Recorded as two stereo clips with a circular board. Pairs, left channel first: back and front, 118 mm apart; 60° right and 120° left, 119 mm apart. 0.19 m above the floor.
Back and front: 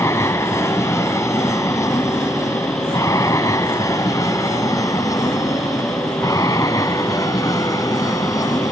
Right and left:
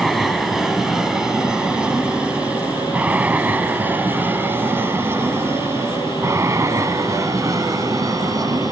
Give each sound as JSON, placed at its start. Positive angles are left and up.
{"t": 0.0, "sound": "an aircraft", "azimuth_deg": -150}